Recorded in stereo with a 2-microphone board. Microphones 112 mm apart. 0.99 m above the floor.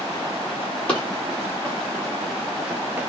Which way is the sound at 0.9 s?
10° left (ahead or behind).